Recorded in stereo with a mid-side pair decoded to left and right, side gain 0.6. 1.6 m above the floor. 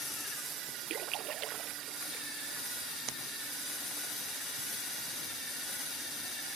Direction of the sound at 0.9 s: 60° right.